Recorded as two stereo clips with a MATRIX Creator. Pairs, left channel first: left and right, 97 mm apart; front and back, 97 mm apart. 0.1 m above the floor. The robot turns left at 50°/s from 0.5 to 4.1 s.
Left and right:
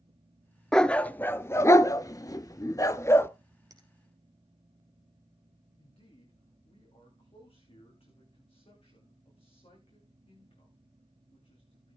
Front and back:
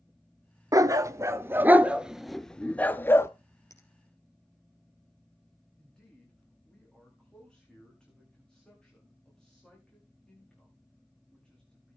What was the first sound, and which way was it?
A dog barking, 170° left.